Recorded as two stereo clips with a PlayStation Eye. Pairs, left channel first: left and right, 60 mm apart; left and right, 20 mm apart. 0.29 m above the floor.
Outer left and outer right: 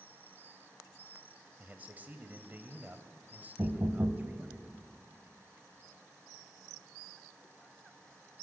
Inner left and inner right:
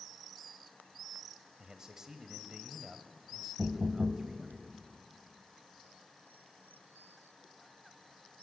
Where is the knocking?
40° right (ahead or behind), 1.5 m.